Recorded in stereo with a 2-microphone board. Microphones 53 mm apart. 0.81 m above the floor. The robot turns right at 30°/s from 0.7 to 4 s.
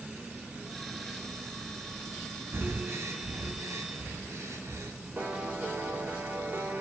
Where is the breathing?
50° right (ahead or behind), 2 m; by 4.9 s 70° right (ahead or behind), 2 m.